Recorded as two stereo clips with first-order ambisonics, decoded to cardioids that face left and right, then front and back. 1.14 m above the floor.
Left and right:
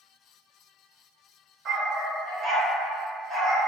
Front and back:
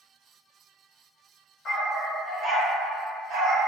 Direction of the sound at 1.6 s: 45° right.